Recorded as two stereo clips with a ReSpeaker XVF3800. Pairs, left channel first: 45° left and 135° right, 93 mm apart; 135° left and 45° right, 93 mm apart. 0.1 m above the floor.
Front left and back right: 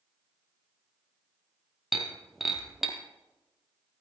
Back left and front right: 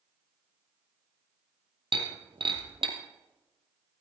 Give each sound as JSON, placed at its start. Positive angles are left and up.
{"t": 1.9, "sound": "breaking glass", "azimuth_deg": -50, "distance_m": 1.9}